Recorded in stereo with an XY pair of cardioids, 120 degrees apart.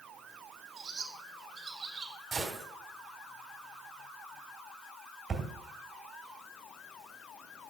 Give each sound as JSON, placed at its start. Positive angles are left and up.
{"t": 0.8, "sound": "a bird", "azimuth_deg": -35, "distance_m": 2.0}
{"t": 2.3, "sound": "a gunshot", "azimuth_deg": -35, "distance_m": 2.5}
{"t": 5.3, "sound": "a thud", "azimuth_deg": -35, "distance_m": 2.5}